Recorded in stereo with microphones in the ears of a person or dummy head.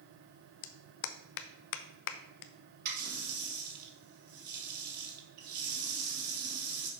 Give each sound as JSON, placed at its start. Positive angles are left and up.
{"t": 0.6, "sound": "a clap", "side_deg": 65, "distance_m": 0.6}
{"t": 2.9, "sound": "a running tap", "side_deg": -55, "distance_m": 1.6}